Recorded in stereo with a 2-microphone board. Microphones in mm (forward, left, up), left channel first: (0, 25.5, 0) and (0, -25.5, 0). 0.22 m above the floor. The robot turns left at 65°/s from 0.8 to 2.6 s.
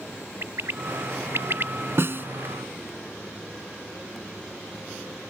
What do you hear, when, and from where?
0.4 s a bird: 65° right (ahead or behind); by 1.7 s 50° right (ahead or behind)
2.0 s a snare drum: 55° right (ahead or behind); by 2.3 s 45° right (ahead or behind)